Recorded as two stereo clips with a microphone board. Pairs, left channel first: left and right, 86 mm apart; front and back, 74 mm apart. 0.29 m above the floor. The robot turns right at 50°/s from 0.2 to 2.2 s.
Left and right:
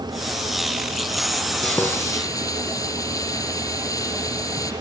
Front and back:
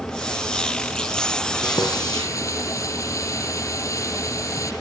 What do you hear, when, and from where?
1.6 s frying: 10° left, 6 m; by 4.7 s 40° left, 6 m